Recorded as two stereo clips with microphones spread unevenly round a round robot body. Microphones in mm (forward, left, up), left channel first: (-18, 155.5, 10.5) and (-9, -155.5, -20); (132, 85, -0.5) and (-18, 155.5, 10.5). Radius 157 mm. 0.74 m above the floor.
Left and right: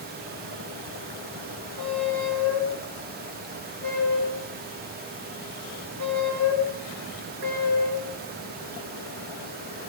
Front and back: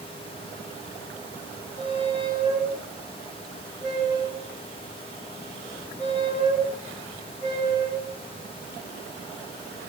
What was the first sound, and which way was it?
A squeak, 60° right.